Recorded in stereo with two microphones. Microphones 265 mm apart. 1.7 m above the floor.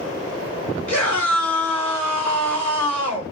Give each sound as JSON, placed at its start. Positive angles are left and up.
{"t": 0.9, "sound": "a scream", "side_deg": -75, "distance_m": 4.5}